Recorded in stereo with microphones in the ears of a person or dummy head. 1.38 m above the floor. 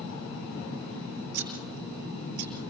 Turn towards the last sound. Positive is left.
turn(degrees=-60)  # may be behind; listen again after turning